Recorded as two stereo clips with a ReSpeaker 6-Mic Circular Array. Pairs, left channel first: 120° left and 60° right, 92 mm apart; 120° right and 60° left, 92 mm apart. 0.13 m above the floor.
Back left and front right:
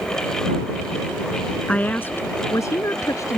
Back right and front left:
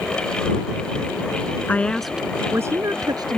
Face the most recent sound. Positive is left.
turn(degrees=75)